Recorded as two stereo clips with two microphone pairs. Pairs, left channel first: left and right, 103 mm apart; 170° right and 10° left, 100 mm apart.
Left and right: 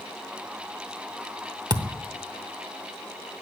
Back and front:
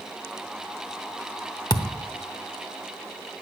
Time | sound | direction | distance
1.7 | a thud | 130° right | 0.8 m